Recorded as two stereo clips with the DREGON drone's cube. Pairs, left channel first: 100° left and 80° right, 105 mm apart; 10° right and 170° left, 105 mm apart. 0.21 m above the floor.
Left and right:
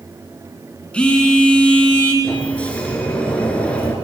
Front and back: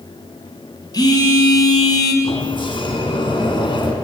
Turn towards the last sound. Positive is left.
turn(degrees=25)